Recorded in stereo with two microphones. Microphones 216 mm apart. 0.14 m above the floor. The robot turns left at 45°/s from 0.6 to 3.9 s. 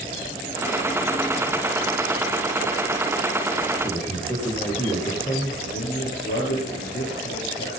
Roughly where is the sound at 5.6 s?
Left.